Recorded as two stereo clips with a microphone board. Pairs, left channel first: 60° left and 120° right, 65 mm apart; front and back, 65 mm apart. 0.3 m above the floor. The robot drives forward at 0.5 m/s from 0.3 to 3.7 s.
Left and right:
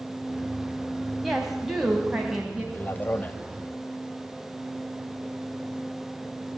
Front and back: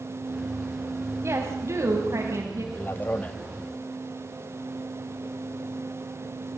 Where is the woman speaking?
150° left, 2.5 m; by 2.6 s 160° left, 3 m.